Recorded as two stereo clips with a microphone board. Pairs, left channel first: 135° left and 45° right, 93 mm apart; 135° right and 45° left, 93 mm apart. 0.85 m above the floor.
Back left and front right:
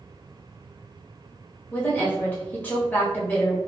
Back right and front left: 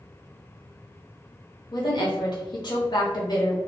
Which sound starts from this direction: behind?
A woman speaking, at 1.7 s.